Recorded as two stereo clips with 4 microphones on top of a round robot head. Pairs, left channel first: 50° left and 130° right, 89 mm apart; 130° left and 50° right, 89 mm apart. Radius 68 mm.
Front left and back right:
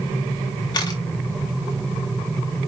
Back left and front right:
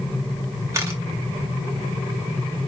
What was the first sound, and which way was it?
A camera shutter, 10° left.